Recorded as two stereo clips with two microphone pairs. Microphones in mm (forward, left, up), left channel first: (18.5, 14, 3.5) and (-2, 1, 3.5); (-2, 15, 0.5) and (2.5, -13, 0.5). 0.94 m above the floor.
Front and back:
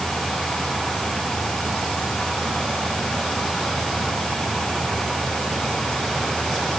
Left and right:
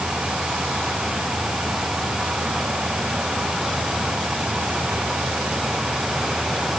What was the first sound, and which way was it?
Only background noise.